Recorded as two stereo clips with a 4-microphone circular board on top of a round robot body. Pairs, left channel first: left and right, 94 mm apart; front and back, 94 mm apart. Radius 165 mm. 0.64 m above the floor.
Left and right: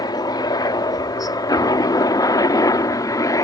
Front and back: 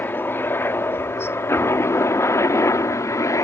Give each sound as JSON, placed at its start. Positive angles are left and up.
{"t": 0.0, "sound": "a helicopter", "azimuth_deg": 60}